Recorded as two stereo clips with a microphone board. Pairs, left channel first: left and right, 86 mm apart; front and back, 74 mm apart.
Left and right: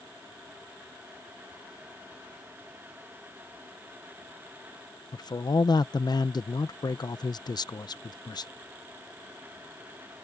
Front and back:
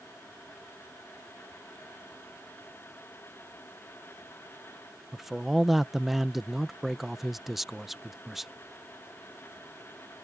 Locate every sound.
5.1 s a man speaking: 95° left